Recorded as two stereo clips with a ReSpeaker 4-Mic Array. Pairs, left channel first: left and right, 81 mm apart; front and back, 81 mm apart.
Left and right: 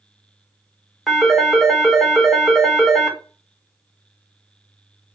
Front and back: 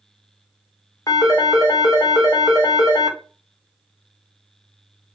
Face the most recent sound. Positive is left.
turn(degrees=0)